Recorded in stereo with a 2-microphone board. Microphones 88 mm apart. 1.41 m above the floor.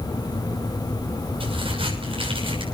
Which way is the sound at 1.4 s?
90° right.